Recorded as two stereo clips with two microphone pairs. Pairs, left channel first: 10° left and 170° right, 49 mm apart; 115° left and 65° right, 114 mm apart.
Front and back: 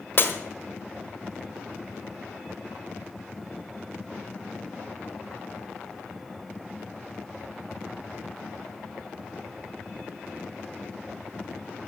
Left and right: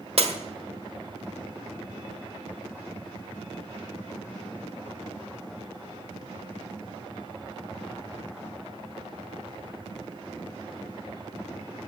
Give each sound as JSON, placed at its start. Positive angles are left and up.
{"t": 0.2, "sound": "breaking glass", "azimuth_deg": -40, "distance_m": 1.7}